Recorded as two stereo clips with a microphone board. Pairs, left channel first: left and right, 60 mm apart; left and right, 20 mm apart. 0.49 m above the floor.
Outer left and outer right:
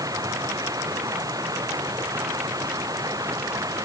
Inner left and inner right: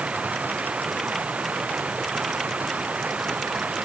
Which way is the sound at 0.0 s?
85° right.